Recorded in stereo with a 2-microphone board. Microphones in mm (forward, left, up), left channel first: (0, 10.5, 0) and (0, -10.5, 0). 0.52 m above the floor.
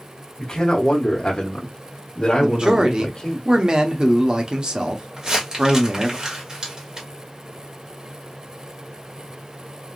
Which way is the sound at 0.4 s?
35° left (ahead or behind).